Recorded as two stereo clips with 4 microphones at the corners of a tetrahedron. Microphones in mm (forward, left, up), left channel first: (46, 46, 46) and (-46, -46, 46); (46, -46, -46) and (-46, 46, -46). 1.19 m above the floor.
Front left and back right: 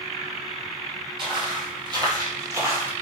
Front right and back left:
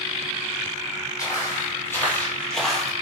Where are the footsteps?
100° right, 1.7 m; by 2.9 s 145° right, 1.2 m.